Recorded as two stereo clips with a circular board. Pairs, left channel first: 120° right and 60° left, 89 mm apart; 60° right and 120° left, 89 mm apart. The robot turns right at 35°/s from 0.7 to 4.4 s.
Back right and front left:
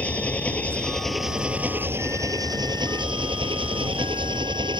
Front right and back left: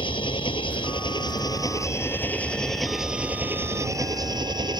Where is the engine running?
45° right; by 4.8 s 85° left.